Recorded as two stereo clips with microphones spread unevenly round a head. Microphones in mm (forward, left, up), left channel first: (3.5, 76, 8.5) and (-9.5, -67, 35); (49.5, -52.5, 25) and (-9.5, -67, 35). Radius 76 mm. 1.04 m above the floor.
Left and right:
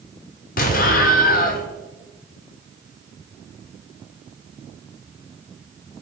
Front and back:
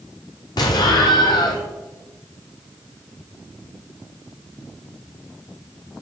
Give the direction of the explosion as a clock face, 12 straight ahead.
10 o'clock.